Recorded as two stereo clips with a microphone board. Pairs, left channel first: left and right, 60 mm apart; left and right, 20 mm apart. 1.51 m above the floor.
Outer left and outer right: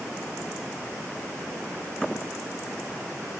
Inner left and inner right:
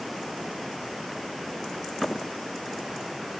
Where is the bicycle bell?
I don't hear a bicycle bell.